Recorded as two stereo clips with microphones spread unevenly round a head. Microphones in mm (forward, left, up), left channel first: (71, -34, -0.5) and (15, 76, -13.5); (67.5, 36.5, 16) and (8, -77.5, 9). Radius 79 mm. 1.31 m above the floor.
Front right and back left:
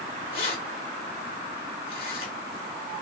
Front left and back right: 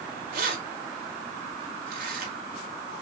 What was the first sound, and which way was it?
Keys jangling, 120° right.